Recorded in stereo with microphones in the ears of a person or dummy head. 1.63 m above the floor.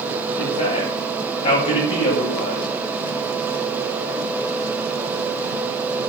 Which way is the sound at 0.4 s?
35° left (ahead or behind).